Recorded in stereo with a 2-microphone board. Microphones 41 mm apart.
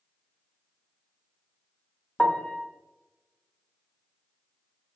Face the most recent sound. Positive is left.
turn(degrees=25)  # may be behind; listen again after turning